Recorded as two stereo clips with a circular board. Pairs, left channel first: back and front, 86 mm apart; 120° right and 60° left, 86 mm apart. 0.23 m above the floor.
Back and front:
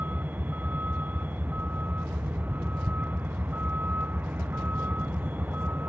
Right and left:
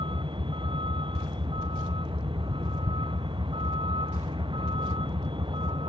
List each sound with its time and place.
0.0 s a vehicle: 70° left